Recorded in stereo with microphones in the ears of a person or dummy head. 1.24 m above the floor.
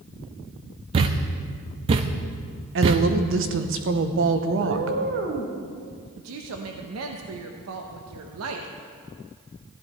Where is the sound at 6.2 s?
80° right, 0.9 m.